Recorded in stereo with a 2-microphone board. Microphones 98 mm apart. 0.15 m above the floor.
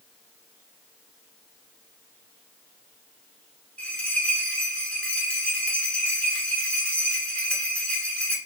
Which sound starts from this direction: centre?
A bell, at 3.8 s.